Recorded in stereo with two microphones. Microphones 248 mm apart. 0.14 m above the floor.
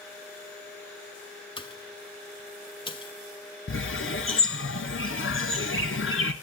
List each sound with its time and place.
1.6 s a pop: 20° left (ahead or behind), 1.0 m
3.7 s a bird: 55° left (ahead or behind), 1.0 m